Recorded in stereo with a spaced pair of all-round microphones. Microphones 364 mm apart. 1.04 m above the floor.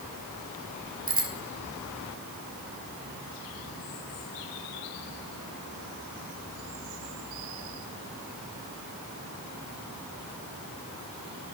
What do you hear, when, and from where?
1.1 s a bicycle bell: 40° right (ahead or behind), 7 m